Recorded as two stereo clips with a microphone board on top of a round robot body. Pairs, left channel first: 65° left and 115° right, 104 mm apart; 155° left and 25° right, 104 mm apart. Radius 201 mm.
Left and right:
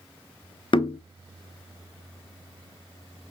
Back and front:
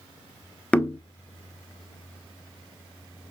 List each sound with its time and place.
0.7 s knocking: 80° left, 0.6 m